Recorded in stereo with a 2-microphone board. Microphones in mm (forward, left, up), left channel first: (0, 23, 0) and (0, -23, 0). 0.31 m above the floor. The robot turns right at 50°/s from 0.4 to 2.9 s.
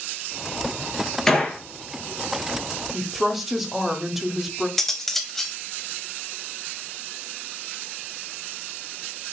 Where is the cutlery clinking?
10° left (ahead or behind), 0.8 m.